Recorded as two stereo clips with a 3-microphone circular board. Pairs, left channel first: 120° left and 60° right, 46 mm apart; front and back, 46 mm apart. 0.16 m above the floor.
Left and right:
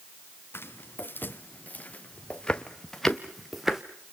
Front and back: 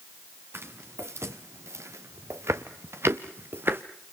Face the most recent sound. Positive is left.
turn(degrees=-145)